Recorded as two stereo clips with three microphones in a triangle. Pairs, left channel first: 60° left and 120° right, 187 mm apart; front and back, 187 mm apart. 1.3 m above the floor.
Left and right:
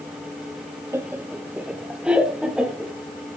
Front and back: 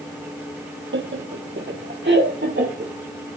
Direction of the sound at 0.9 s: 165° left.